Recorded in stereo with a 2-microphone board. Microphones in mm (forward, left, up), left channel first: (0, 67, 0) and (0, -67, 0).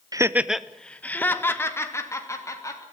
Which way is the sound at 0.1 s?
25° right (ahead or behind).